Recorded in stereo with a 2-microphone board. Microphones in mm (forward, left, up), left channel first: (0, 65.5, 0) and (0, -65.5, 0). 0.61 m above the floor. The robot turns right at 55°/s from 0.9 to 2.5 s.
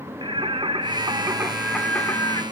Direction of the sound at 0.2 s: 45° right.